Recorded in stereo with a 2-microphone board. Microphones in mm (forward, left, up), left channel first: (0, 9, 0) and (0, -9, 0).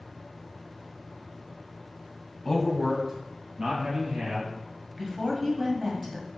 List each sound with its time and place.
2.5 s a man speaking: 20° left (ahead or behind), 1.1 m; by 4.5 s 65° right (ahead or behind), 2.5 m
5.0 s a woman speaking: 15° right (ahead or behind), 1.2 m